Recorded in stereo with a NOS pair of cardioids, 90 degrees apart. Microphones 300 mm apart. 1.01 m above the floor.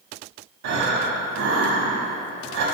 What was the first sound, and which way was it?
Breathing, 65° right.